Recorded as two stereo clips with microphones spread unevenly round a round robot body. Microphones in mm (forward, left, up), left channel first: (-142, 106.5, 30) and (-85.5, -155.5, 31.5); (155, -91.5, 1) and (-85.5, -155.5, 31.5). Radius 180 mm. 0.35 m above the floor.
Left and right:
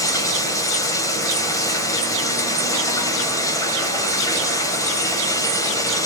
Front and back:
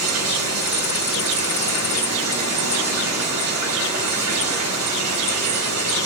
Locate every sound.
0.0 s running water: straight behind, 2.0 m